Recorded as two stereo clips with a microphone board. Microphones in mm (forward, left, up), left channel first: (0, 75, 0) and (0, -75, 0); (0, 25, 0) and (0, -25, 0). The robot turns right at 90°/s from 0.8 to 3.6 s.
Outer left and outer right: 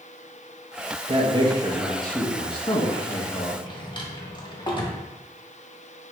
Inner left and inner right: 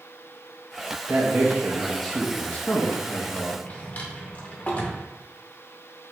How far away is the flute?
No flute in this recording.